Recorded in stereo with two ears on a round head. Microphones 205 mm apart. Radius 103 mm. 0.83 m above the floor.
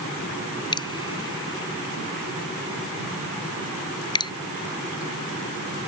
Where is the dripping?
20° left (ahead or behind).